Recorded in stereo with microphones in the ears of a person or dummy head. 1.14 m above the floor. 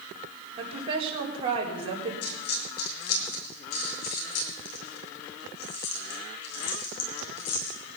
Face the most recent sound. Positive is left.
turn(degrees=60)  # may be behind; listen again after turning